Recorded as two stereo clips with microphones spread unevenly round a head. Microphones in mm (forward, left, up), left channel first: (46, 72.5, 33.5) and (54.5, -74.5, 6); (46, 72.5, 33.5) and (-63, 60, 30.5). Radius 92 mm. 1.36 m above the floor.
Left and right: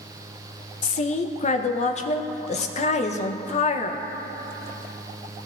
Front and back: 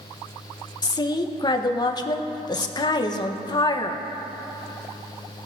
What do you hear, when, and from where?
0.8 s a woman speaking: 55° left, 0.9 m